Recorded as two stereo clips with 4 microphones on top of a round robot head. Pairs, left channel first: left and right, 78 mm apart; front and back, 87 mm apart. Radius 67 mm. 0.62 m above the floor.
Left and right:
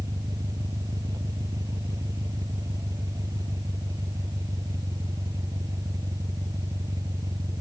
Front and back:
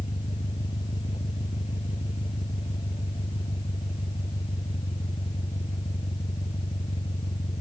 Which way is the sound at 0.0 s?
45° right.